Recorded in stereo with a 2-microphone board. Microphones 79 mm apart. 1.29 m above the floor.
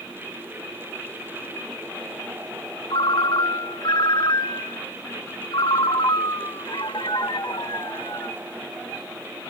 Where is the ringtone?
65° left (ahead or behind), 0.8 m.